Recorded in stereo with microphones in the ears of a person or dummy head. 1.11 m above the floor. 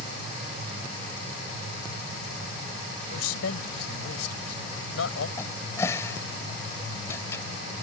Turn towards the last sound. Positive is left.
turn(degrees=15)  # may be behind; listen again after turning